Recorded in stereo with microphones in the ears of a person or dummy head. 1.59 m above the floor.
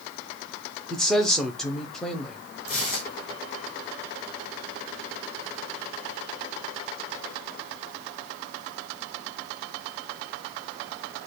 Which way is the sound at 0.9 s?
10° left (ahead or behind).